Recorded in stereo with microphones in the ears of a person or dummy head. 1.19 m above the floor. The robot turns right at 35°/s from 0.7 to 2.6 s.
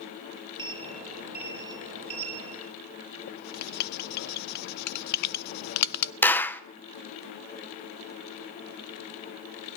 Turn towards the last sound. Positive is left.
turn(degrees=10)  # may be behind; listen again after turning